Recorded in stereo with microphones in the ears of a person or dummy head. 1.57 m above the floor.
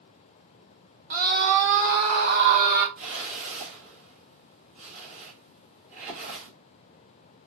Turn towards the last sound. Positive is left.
turn(degrees=-40)  # may be behind; listen again after turning